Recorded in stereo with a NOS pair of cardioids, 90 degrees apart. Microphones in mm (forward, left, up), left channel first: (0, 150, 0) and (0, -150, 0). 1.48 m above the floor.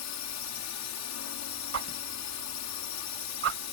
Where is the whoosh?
50° right.